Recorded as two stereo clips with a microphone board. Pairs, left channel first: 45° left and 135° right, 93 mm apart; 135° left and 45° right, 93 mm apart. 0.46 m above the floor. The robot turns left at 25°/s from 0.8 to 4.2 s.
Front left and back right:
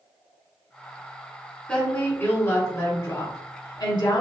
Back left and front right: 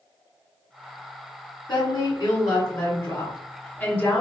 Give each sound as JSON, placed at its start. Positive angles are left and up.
{"t": 1.7, "sound": "a woman speaking", "azimuth_deg": 115, "distance_m": 2.0}